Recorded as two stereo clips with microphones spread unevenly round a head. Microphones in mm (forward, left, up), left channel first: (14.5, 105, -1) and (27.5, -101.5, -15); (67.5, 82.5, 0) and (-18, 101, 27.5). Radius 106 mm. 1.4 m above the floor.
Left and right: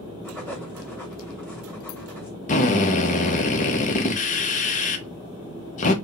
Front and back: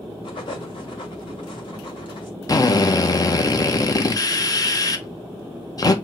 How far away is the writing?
About 2.0 m.